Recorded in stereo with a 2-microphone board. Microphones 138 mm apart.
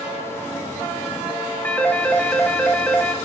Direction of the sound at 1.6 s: 10° left (ahead or behind).